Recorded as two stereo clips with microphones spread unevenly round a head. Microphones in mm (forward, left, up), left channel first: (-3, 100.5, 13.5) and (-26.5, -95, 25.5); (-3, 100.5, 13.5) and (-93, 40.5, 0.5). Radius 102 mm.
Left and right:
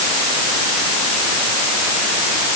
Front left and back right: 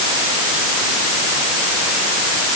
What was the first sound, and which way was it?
Only background noise.